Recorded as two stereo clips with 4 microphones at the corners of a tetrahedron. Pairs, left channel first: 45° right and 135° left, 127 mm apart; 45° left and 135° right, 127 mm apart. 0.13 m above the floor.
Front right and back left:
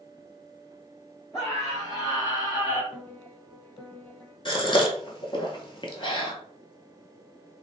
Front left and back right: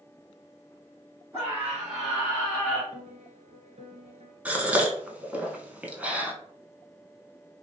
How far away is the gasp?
About 0.6 m.